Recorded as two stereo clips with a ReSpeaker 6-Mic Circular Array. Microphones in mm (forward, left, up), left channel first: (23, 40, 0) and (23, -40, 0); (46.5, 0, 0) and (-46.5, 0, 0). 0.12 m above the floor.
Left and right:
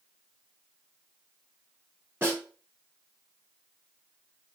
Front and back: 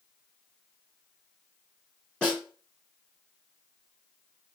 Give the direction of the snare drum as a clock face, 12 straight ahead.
2 o'clock.